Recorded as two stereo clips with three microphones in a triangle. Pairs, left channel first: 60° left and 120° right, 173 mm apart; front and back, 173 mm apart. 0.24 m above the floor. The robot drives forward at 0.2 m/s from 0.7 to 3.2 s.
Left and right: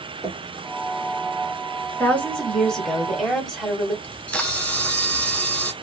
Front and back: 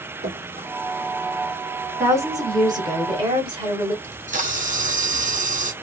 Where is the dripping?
170° left, 1.1 m.